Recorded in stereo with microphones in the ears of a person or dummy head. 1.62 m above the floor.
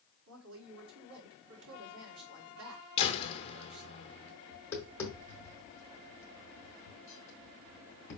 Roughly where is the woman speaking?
Right.